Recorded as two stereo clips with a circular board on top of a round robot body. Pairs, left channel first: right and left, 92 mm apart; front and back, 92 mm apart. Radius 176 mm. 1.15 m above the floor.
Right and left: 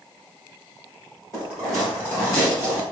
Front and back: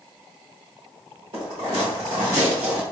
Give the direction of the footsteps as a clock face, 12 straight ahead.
5 o'clock.